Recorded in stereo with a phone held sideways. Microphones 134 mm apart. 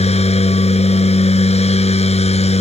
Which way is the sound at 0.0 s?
50° left (ahead or behind).